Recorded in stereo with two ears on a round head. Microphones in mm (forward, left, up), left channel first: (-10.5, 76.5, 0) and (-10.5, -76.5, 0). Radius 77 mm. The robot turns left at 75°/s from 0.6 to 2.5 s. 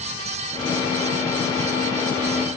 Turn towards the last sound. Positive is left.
No sound to turn to.